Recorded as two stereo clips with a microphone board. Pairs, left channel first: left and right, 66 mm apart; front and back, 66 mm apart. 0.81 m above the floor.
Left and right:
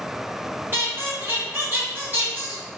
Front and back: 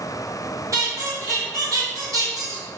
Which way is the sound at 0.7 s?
140° right.